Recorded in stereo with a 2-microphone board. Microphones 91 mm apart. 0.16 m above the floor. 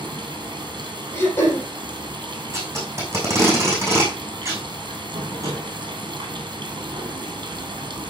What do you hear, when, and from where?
0.0 s running water: 55° right (ahead or behind), 2.5 m
1.1 s throat clearing: 25° left (ahead or behind), 3.5 m
2.5 s tape being pulled: 30° right (ahead or behind), 5 m